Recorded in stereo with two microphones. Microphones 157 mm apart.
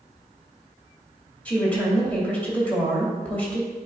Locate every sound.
1.4 s a woman speaking: 10° left (ahead or behind), 2 m